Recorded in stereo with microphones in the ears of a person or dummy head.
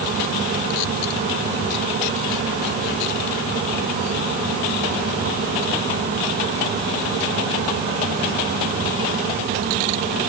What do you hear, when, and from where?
Only background noise.